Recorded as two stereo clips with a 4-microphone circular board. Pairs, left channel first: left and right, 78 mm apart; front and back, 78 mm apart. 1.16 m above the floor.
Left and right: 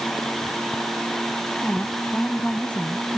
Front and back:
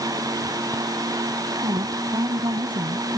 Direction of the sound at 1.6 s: 165° left.